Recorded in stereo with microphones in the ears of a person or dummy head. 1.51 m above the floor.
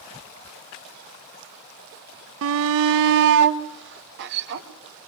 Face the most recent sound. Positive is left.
turn(degrees=-55)  # may be behind; listen again after turning